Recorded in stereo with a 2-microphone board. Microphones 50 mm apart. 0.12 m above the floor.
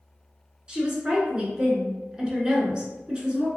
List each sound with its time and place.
0.7 s a woman speaking: 20° right (ahead or behind), 1.2 m